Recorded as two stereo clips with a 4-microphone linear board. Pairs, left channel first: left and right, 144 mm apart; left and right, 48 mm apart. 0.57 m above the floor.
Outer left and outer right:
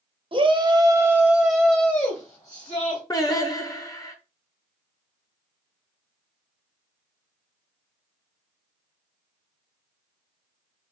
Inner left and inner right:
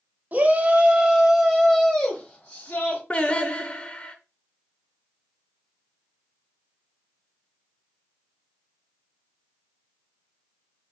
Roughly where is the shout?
Right.